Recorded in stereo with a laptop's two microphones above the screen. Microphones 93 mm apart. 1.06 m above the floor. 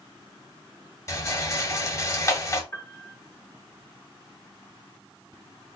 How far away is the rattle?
About 1.1 m.